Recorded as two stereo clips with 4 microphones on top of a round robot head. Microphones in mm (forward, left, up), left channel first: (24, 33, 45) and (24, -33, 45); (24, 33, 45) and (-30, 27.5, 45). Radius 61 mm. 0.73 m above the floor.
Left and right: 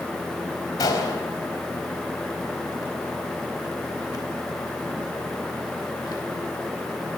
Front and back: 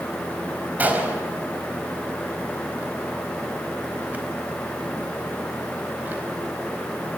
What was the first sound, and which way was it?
A gunshot, 125° left.